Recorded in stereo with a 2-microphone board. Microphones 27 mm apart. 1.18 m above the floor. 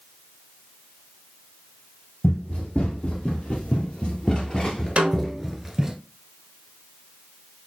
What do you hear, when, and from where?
2.2 s running footsteps: 65° left (ahead or behind), 3 m; by 6.0 s 10° right (ahead or behind), 1.1 m
5.0 s a snare drum: 50° right (ahead or behind), 1.1 m